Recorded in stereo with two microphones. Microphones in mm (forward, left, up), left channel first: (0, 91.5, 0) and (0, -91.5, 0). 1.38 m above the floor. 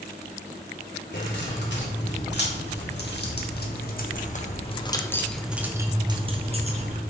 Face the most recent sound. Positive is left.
turn(degrees=-40)  # may be behind; listen again after turning